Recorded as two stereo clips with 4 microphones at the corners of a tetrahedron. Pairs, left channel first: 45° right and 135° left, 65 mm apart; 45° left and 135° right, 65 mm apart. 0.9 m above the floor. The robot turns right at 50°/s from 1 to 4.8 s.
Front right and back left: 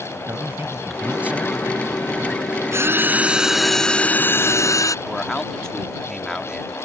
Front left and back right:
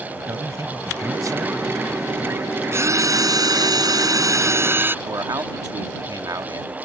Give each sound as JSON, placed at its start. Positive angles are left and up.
{"t": 0.3, "sound": "a man speaking", "azimuth_deg": -170}
{"t": 2.7, "sound": "a drill", "azimuth_deg": 175}
{"t": 5.0, "sound": "a man speaking", "azimuth_deg": -125}